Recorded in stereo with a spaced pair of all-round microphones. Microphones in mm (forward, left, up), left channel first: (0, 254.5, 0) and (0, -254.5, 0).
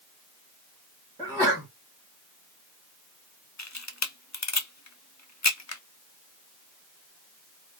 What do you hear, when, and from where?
1.2 s a sneeze: centre (ahead or behind), 2 m
3.6 s a camera shutter: 35° left (ahead or behind), 0.6 m